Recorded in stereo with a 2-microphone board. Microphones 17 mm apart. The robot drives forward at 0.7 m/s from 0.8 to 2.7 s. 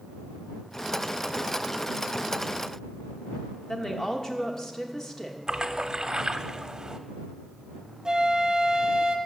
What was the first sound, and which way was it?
A woman speaking, 30° left (ahead or behind).